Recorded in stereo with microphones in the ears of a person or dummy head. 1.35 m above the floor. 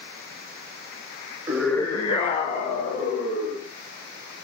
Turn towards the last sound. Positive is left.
turn(degrees=55)  # may be behind; listen again after turning